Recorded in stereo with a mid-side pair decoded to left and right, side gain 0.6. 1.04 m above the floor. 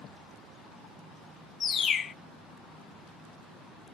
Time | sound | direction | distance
1.6 | a bird | 40° left | 0.5 m